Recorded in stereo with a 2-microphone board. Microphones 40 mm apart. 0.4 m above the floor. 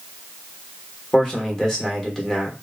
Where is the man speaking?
15° left (ahead or behind), 1.0 m.